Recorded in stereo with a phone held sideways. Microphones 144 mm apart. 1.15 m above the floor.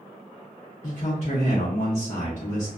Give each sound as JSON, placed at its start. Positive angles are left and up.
{"t": 0.8, "sound": "a man speaking", "side_deg": 55, "distance_m": 0.5}